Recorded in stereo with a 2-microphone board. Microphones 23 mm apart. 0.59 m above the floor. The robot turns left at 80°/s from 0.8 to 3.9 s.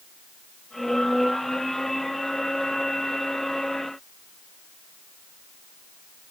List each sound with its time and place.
Only background noise.